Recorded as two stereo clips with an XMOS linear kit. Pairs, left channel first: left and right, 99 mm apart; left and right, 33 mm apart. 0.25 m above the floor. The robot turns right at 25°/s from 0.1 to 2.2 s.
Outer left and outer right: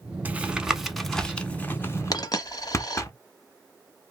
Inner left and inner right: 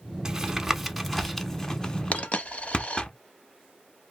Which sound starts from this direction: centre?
Tapping, at 0.2 s.